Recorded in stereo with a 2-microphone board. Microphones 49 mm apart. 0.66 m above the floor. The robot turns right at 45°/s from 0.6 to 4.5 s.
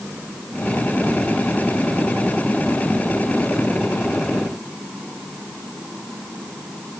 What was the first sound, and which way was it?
Only background noise.